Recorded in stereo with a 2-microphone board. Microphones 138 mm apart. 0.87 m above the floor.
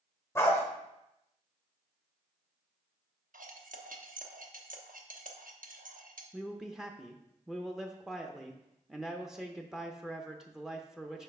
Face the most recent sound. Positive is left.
turn(degrees=-5)  # may be behind; listen again after turning